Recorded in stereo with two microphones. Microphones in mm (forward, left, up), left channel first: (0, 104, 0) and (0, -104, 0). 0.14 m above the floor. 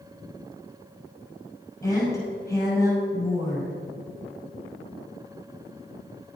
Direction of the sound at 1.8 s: 15° left (ahead or behind).